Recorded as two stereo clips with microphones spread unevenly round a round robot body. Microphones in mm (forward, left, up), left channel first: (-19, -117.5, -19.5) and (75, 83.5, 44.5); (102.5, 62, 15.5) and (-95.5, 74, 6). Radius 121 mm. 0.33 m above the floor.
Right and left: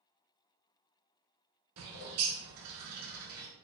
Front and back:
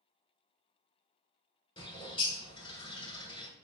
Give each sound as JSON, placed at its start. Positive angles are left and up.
{"t": 1.8, "sound": "a bird", "azimuth_deg": 60, "distance_m": 0.9}